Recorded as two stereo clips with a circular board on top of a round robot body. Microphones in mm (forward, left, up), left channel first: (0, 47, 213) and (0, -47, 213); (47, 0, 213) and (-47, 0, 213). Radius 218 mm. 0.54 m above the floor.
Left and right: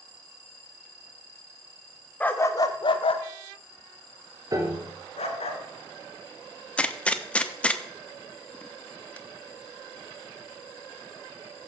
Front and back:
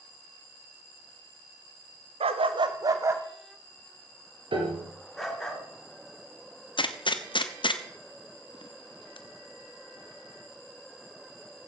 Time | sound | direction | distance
2.2 | a dog barking | 165° left | 0.8 m
4.5 | a piano | 145° right | 2.5 m
6.8 | a gunshot | 15° left | 1.4 m